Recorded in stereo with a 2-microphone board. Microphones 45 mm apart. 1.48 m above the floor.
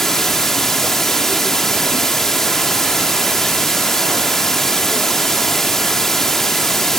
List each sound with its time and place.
0.0 s running water: 5° left (ahead or behind)